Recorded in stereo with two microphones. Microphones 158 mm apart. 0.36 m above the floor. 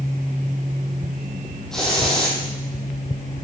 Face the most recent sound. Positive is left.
turn(degrees=5)  # may be behind; listen again after turning